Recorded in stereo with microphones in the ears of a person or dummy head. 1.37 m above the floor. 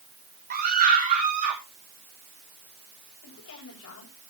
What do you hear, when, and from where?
0.5 s a scream: 45° right (ahead or behind), 1.1 m; by 1.6 s 40° right (ahead or behind), 1.7 m
3.2 s a woman speaking: 75° left (ahead or behind), 8 m